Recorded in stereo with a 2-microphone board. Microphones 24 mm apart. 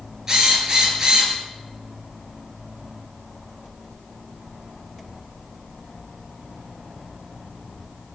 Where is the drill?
25° right (ahead or behind), 7 m.